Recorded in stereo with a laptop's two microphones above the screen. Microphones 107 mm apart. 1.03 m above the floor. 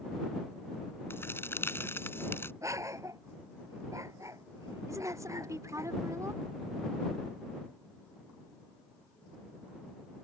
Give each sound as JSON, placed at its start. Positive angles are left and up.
{"t": 1.1, "sound": "a crack", "side_deg": 25}
{"t": 2.6, "sound": "a dog barking", "side_deg": -30}
{"t": 4.9, "sound": "a woman speaking", "side_deg": -30}